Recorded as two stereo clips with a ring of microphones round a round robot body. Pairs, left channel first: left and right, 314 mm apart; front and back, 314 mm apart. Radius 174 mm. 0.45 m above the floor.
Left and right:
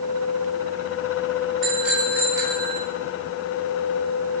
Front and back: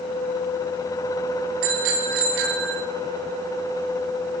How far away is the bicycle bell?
About 5 m.